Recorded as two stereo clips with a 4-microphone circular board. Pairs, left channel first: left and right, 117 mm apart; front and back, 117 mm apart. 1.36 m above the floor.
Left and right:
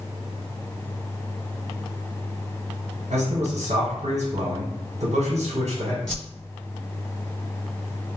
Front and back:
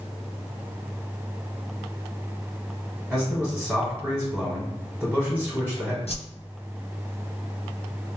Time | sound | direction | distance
3.1 | a man speaking | 95° right | 1.0 m
6.1 | a whoosh | 5° left | 1.0 m